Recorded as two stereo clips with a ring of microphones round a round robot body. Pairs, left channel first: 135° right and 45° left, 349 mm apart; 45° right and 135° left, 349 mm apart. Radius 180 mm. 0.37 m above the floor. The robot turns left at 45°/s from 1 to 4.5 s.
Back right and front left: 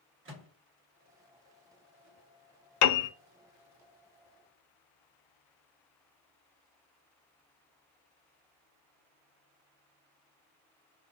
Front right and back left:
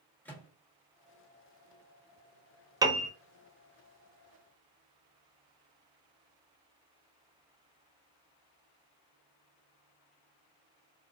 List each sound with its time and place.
0.2 s a microwave: 35° left, 1.3 m
2.8 s a piano: 150° right, 0.6 m; by 3.1 s 160° right, 0.6 m